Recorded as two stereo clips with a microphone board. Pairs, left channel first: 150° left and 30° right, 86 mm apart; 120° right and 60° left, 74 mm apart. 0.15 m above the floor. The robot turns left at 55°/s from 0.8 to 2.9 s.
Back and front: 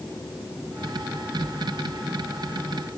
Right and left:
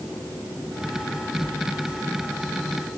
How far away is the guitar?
I don't hear a guitar.